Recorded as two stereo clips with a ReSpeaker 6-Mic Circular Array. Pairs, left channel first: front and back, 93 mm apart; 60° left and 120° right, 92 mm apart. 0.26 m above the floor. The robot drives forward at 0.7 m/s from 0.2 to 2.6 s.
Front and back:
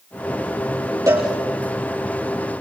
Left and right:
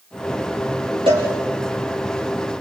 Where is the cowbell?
125° right, 6 m.